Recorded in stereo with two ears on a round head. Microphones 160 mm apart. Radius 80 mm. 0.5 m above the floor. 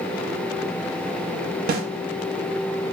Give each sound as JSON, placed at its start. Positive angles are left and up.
{"t": 1.7, "sound": "a snare drum", "side_deg": -55, "distance_m": 0.5}